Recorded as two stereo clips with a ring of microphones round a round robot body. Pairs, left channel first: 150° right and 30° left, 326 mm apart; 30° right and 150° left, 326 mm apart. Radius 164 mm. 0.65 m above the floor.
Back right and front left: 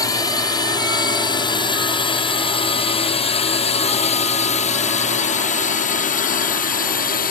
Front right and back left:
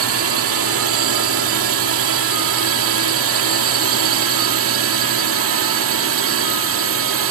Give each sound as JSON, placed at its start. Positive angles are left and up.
{"t": 0.0, "sound": "a drone", "azimuth_deg": 135}